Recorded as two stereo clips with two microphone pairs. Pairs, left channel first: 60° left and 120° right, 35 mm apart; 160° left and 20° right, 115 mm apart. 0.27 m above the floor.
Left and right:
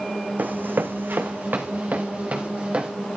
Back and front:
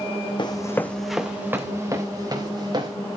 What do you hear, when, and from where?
0.4 s running footsteps: 155° right, 1.2 m; by 2.9 s 70° right, 3.5 m